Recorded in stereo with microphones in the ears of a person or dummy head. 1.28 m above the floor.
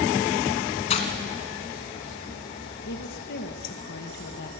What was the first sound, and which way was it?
Breaking glass, 35° left (ahead or behind).